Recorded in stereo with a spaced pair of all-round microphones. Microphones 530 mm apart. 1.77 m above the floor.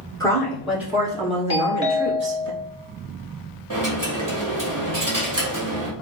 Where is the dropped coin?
35° right (ahead or behind), 1.5 m.